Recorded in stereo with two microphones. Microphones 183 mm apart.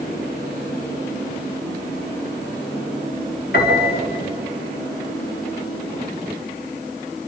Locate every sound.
3.5 s a piano: 60° left (ahead or behind), 5 m